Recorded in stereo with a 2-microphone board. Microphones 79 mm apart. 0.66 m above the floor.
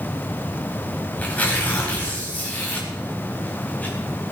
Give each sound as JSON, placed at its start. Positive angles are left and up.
{"t": 1.2, "sound": "tearing paper", "side_deg": 20, "distance_m": 4.0}